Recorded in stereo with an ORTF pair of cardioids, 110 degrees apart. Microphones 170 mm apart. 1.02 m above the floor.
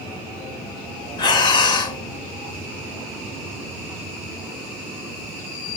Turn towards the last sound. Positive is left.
turn(degrees=25)